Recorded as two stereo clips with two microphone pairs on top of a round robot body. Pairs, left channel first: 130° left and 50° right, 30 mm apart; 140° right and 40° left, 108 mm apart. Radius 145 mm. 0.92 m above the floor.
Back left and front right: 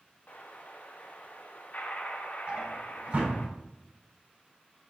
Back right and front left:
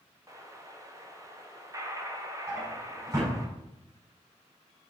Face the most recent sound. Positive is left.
turn(degrees=-15)